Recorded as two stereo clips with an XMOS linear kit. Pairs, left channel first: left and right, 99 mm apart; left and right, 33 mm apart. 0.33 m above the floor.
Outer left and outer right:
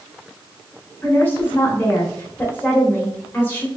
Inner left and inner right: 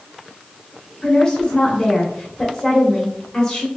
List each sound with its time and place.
1.0 s a woman speaking: 20° left (ahead or behind), 0.9 m